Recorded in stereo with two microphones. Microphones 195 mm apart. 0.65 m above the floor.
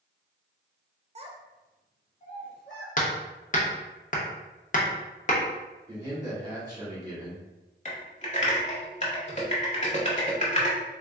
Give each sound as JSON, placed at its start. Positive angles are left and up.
{"t": 1.1, "sound": "a child speaking", "side_deg": -35, "distance_m": 0.6}
{"t": 3.0, "sound": "hammering", "side_deg": 45, "distance_m": 0.7}
{"t": 5.9, "sound": "a man speaking", "side_deg": -20, "distance_m": 1.4}
{"t": 7.8, "sound": "typing on a keyboard", "side_deg": 40, "distance_m": 0.8}